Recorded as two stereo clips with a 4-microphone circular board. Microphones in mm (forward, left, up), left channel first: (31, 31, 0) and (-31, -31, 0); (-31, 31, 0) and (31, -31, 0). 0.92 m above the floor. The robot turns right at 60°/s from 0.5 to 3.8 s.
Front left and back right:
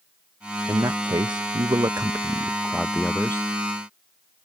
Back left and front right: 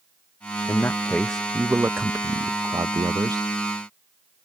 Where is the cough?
No cough in this recording.